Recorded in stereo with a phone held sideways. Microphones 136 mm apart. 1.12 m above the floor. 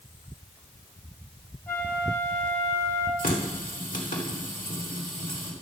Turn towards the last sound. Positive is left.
turn(degrees=80)